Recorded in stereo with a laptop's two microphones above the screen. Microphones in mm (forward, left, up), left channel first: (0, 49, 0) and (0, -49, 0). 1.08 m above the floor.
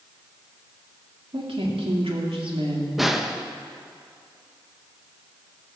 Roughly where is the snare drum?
Centre.